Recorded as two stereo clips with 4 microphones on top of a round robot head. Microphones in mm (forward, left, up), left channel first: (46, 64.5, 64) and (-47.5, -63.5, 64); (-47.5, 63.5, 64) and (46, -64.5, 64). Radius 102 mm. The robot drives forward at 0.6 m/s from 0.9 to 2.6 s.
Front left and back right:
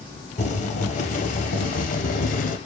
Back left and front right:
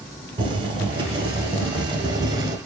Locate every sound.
0.4 s boiling: 5° left, 2.5 m; by 2.6 s 15° left, 1.3 m